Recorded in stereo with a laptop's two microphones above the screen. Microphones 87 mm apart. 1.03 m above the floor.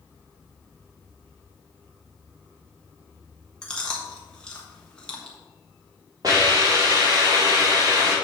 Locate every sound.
3.6 s chewing: 10° left (ahead or behind), 1.3 m
6.2 s a hiss: 45° right (ahead or behind), 3 m